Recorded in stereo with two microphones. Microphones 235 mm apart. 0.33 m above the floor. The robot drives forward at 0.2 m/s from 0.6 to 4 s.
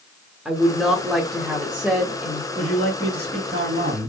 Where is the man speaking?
50° right (ahead or behind), 2.0 m; by 4.1 s 45° right (ahead or behind), 2 m.